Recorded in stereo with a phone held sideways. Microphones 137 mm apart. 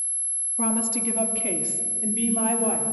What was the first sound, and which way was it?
A woman speaking, 85° left.